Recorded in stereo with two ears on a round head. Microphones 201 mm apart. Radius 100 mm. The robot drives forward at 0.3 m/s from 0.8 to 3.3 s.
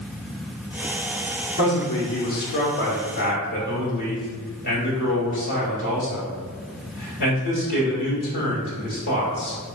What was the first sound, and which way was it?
A man speaking, 55° left (ahead or behind).